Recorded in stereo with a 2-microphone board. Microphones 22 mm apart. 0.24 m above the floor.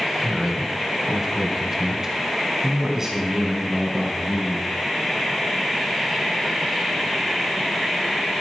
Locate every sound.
0.2 s a man speaking: 10° right (ahead or behind), 1.0 m; by 4.7 s 20° right (ahead or behind), 3 m